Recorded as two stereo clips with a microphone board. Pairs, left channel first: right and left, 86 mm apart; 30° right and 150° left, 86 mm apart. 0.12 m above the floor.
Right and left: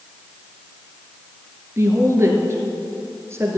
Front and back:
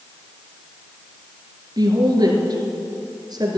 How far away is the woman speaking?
About 2.5 m.